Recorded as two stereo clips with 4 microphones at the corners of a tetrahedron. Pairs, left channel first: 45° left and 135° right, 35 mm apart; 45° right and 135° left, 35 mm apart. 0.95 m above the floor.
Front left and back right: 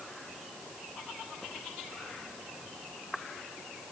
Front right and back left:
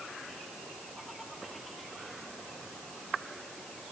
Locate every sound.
Only background noise.